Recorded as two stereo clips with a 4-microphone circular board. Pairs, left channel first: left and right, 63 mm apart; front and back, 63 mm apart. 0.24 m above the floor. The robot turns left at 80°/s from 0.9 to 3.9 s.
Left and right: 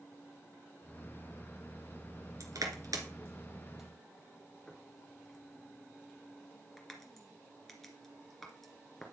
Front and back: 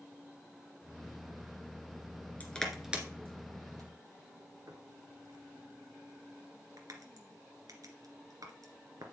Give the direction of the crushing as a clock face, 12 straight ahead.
2 o'clock.